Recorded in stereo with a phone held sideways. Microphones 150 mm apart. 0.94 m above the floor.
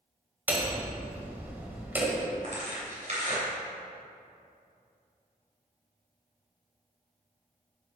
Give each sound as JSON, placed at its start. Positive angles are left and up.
{"t": 0.5, "sound": "hammering", "side_deg": -15, "distance_m": 1.4}
{"t": 2.4, "sound": "tearing paper", "side_deg": -50, "distance_m": 3.0}